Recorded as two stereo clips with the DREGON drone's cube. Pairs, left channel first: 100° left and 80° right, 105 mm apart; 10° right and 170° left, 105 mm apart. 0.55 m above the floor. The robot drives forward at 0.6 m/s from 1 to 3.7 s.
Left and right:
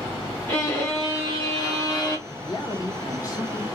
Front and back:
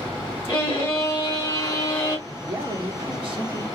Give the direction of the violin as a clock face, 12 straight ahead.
11 o'clock.